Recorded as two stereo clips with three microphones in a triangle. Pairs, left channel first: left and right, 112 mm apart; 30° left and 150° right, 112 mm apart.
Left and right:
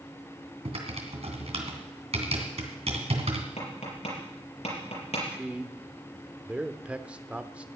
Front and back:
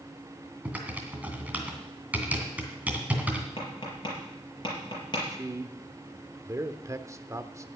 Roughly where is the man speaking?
Behind right.